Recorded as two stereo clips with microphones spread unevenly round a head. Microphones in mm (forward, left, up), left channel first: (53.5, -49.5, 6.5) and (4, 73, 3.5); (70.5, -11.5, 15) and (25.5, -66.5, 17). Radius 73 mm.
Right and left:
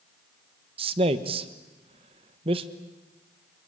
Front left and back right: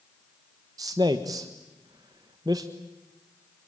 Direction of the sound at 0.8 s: 170° left.